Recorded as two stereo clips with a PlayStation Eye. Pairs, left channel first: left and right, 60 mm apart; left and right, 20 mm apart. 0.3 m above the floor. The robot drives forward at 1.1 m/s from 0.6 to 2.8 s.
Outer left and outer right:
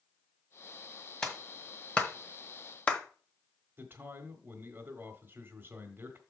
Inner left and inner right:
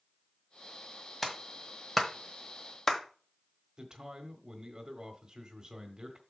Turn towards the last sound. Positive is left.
turn(degrees=-35)  # may be behind; listen again after turning